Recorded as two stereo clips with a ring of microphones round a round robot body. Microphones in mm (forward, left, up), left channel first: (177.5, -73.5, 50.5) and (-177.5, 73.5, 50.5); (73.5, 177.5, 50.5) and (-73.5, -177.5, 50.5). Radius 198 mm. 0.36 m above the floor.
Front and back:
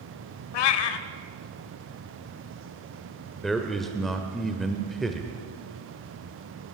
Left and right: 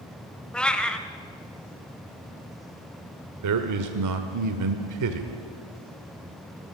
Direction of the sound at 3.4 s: 110° right.